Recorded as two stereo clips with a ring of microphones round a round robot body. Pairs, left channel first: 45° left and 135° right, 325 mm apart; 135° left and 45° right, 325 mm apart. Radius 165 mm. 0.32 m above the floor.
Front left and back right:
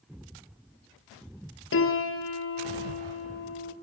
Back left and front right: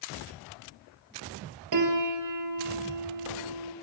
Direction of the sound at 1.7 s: 10° right.